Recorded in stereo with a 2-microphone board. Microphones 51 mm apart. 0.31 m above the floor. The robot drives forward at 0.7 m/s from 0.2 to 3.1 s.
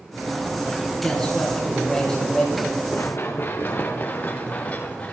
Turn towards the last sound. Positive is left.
turn(degrees=25)  # may be behind; listen again after turning